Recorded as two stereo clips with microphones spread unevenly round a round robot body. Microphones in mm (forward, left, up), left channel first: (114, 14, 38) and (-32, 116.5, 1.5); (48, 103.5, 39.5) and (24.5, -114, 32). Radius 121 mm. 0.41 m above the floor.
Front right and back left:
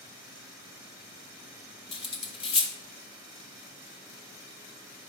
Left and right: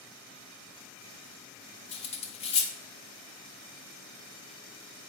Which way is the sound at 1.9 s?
30° left.